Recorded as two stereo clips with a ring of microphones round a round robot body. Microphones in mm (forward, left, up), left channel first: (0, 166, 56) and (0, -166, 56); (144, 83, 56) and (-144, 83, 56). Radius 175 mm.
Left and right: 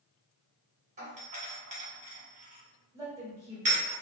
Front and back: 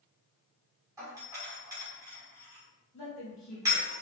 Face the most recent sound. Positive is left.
turn(degrees=-10)